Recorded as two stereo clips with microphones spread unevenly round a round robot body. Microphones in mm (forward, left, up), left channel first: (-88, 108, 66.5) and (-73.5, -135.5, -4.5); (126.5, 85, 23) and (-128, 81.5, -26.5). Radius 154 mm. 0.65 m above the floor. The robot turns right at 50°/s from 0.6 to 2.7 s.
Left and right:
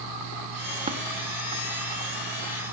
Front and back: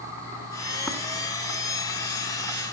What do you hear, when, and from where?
0.9 s tapping: 100° right, 0.7 m; by 1.0 s 90° right, 0.7 m